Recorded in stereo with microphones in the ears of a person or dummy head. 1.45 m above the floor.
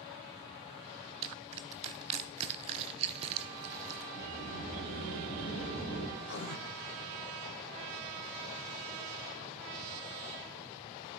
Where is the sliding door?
55° left (ahead or behind), 5.5 m.